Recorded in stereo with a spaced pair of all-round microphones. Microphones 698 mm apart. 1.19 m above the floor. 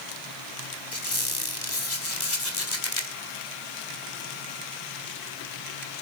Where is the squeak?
80° left, 3.5 m.